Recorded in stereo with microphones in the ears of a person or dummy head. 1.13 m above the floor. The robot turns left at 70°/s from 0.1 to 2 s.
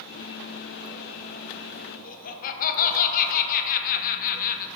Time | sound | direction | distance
2.0 | laughter | 40° left (ahead or behind) | 0.8 m